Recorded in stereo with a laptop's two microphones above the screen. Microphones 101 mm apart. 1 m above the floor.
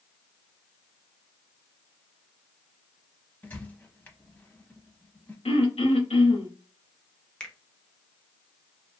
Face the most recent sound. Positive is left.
turn(degrees=10)  # may be behind; listen again after turning